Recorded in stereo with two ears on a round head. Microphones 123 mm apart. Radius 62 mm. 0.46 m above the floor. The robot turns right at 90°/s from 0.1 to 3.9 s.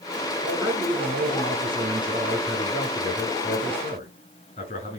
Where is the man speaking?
175° left, 6 m; by 5.0 s 130° left, 6 m.